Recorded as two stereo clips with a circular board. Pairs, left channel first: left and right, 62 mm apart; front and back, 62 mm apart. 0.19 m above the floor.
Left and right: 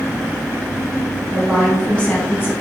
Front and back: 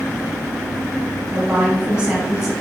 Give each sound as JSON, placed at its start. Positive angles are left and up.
{"t": 1.3, "sound": "a woman speaking", "azimuth_deg": -145, "distance_m": 1.1}